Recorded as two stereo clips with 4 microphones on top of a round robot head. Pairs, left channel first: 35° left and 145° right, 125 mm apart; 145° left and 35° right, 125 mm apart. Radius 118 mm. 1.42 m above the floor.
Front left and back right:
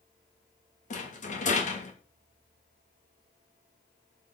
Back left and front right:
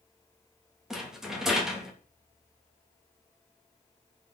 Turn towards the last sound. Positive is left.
turn(degrees=55)